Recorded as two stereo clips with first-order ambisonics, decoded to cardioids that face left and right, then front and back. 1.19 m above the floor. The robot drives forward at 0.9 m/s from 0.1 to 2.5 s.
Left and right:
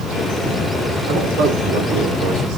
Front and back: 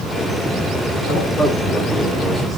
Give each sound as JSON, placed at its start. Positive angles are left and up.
{"t": 1.1, "sound": "a man speaking", "azimuth_deg": -60, "distance_m": 3.5}